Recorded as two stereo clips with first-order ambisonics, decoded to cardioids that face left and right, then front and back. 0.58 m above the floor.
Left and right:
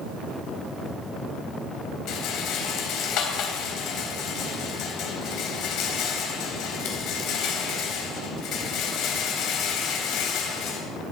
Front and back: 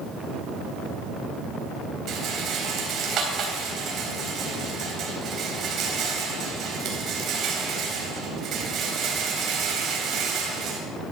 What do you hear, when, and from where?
2.1 s a rattle: 130° left, 3.5 m